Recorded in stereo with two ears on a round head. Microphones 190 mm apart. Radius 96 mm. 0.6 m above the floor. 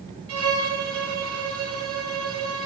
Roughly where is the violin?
Right.